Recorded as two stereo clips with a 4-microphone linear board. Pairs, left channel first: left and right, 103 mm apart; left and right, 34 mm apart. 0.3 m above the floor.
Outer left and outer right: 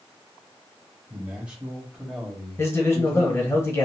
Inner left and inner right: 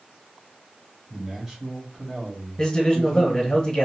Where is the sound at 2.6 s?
25° left (ahead or behind), 1.0 m.